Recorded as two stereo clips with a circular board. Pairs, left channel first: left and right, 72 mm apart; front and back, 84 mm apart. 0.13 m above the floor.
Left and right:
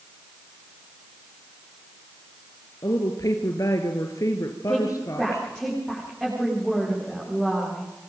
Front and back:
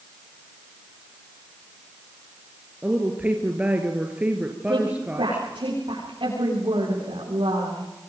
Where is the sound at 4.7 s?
175° right, 9.5 m.